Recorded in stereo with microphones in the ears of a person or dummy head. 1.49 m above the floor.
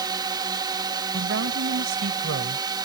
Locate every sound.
0.0 s a drone: 20° right (ahead or behind)
1.1 s a woman speaking: 70° right (ahead or behind)